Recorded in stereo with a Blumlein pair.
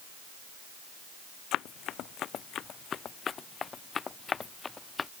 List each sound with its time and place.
1.5 s running footsteps: 35° left; by 5.1 s 15° left